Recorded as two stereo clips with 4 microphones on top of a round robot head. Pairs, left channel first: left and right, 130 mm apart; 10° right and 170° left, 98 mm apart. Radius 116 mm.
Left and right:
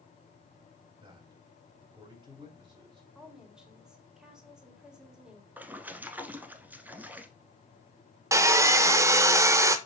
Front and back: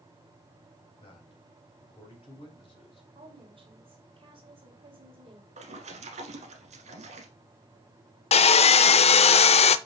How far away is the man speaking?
About 3 m.